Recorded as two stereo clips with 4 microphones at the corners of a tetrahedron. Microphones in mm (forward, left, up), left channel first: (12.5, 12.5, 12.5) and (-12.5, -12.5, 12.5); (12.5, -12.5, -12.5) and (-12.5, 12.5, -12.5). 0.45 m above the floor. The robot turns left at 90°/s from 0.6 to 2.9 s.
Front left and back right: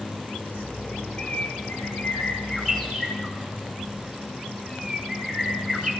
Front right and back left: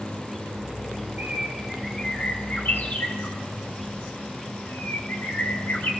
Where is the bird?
110° left, 3 m; by 5.9 s 45° right, 3 m.